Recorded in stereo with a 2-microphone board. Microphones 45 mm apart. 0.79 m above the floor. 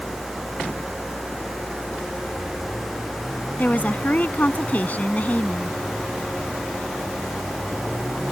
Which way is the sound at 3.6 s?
40° left (ahead or behind).